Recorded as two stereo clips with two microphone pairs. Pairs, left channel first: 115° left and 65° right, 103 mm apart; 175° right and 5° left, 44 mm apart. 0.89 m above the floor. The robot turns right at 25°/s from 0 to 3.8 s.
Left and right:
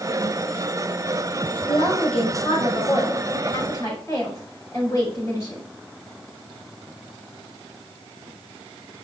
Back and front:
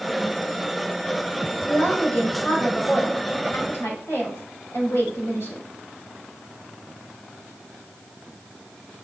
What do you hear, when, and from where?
1.7 s a woman speaking: 120° left, 5 m; by 5.6 s 175° left, 5 m